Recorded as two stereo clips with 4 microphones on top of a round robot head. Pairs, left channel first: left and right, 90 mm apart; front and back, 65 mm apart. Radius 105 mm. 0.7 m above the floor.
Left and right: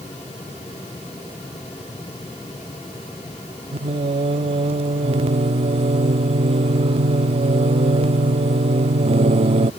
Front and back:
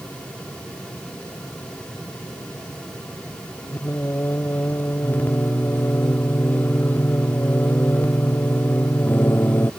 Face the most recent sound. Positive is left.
turn(degrees=-70)